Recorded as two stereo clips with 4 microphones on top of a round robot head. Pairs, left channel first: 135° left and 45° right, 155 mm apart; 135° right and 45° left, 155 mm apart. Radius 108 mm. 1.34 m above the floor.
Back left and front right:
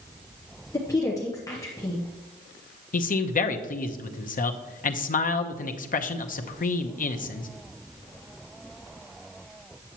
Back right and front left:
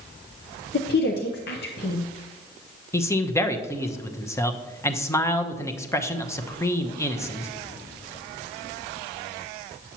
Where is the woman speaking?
155° right, 0.8 m.